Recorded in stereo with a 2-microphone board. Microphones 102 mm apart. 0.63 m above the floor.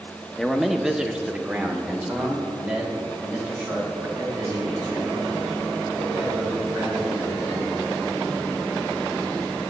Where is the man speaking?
5° left (ahead or behind), 0.7 m; by 7.7 s 20° right (ahead or behind), 6.5 m.